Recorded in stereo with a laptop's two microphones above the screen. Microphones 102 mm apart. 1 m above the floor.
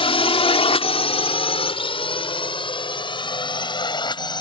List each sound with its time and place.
0.0 s a drone: 65° left (ahead or behind); by 4.4 s 50° left (ahead or behind)